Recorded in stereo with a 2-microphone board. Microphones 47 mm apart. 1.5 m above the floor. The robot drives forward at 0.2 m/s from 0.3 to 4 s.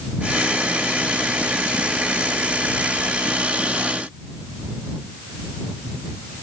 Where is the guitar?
No guitar in this recording.